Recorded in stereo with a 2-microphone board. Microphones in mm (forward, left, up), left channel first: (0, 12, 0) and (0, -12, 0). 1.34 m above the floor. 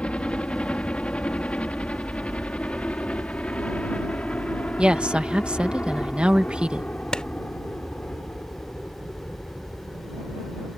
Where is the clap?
40° left (ahead or behind).